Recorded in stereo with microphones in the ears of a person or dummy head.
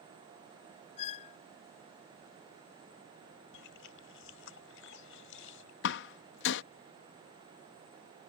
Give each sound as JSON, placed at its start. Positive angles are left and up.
{"t": 1.0, "sound": "a squeak", "side_deg": 35}
{"t": 3.5, "sound": "chewing", "side_deg": 80}
{"t": 5.8, "sound": "a door slam", "side_deg": 70}